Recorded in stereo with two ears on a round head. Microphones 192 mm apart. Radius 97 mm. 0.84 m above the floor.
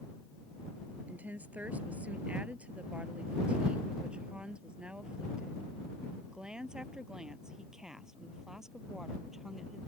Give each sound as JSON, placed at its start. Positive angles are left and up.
{"t": 1.1, "sound": "a woman speaking", "side_deg": -10}